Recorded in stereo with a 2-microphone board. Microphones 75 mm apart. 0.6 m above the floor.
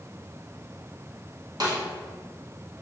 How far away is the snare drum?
About 0.8 m.